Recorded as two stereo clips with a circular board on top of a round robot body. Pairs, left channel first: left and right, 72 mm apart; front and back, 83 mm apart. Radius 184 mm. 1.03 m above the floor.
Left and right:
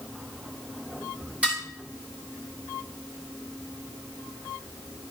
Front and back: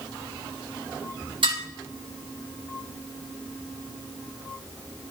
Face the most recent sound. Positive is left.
turn(degrees=-165)